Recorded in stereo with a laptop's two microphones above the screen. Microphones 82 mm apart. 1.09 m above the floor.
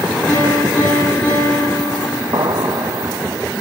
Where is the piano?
15° left (ahead or behind), 10 m.